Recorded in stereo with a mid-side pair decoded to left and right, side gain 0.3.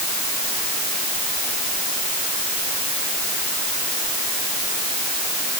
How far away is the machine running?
I don't hear a machine running.